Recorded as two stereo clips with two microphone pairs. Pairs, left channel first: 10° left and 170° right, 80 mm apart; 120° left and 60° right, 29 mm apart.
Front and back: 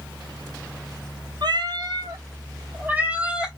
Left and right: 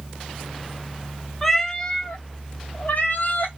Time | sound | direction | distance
1.4 | a cat meowing | 155° right | 0.6 m